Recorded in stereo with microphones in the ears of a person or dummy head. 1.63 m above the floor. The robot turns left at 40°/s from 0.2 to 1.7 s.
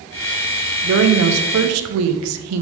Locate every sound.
0.8 s a woman speaking: 60° right, 1.2 m; by 2.6 s 95° right, 1.2 m